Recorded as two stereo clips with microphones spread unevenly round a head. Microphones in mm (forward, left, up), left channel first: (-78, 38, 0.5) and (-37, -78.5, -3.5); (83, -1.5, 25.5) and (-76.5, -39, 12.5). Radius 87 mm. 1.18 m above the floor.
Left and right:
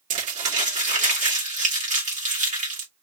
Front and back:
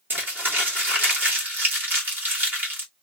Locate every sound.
0.1 s crumpling: 90° right, 2.5 m